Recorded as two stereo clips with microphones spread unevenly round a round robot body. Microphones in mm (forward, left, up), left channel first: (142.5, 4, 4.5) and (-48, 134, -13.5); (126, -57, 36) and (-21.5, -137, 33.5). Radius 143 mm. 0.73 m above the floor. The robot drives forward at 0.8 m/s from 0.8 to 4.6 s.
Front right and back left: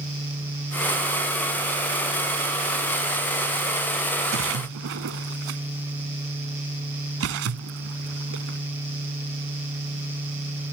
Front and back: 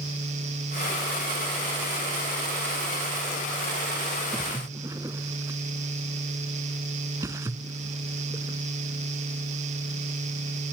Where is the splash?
120° left; by 8.6 s 130° left.